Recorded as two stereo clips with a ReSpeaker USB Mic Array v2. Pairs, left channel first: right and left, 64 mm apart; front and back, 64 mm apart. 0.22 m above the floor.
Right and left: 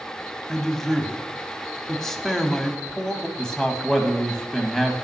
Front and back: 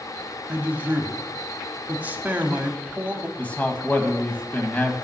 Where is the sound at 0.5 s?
165° right, 1.0 m.